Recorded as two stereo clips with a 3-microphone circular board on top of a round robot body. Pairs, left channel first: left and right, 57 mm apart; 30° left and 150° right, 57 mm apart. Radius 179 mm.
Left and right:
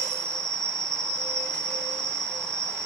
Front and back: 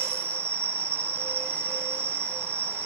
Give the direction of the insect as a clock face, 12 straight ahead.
4 o'clock.